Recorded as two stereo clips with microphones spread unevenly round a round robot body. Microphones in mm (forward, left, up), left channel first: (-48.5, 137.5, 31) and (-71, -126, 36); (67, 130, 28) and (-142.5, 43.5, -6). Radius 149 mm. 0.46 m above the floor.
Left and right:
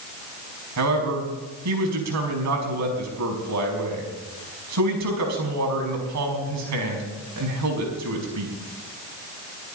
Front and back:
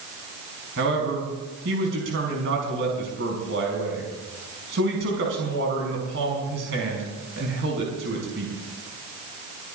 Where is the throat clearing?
No throat clearing in this recording.